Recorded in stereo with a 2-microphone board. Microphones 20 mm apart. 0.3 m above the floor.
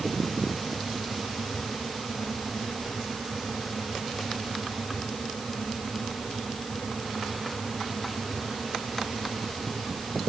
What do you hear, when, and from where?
Only background noise.